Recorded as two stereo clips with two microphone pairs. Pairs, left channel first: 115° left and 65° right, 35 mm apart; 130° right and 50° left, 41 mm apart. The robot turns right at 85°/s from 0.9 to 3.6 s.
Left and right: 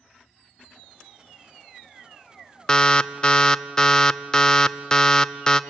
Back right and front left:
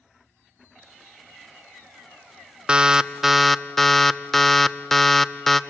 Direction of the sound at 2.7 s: 80° left.